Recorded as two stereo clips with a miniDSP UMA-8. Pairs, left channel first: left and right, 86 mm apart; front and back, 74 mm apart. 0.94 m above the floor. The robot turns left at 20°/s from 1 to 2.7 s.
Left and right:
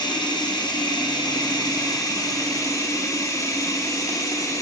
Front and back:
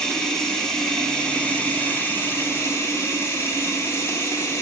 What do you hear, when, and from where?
0.0 s running water: 80° left, 0.8 m; by 4.6 s 45° left, 0.8 m